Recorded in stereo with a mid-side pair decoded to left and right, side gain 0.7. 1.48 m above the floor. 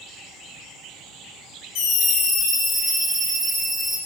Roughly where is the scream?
Ahead left.